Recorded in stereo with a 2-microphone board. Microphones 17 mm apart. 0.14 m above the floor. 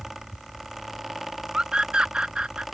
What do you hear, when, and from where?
1.5 s a scream: 70° right (ahead or behind)